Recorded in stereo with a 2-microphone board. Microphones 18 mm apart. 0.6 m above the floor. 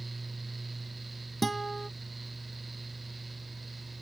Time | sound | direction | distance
1.4 | a guitar | 5° left (ahead or behind) | ?